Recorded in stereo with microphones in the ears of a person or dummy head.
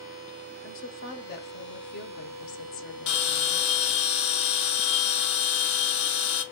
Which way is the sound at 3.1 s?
65° left (ahead or behind).